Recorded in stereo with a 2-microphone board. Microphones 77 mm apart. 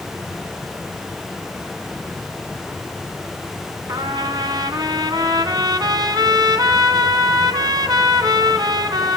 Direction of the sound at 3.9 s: 60° right (ahead or behind).